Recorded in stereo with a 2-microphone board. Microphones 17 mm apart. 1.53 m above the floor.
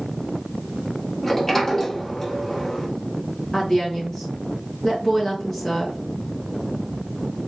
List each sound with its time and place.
1.2 s a sliding door: 20° left (ahead or behind), 1.4 m
3.5 s a woman speaking: 30° left (ahead or behind), 1.5 m